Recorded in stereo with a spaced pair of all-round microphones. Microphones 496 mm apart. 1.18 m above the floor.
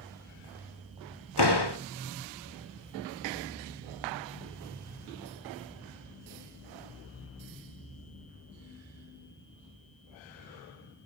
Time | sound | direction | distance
1.4 | a door slam | 50° left (ahead or behind) | 3 m